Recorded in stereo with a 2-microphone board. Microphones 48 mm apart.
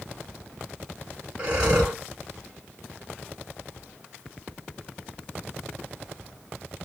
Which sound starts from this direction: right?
Breathing, at 1.4 s.